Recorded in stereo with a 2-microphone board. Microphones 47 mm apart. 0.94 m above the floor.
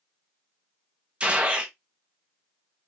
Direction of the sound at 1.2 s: 25° right (ahead or behind).